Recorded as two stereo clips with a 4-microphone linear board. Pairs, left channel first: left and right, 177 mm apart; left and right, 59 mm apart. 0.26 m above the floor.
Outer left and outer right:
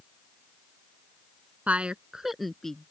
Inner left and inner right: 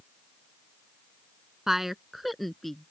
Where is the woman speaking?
10° right (ahead or behind); by 2.9 s 5° left (ahead or behind).